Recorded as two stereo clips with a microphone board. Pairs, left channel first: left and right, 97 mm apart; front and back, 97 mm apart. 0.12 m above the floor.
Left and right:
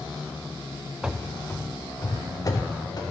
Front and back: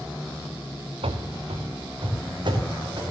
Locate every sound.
1.0 s running footsteps: 170° right, 0.9 m; by 3.0 s 135° left, 3 m